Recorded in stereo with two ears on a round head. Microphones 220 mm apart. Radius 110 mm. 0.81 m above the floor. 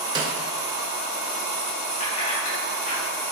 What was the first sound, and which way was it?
A snare drum, 20° right (ahead or behind).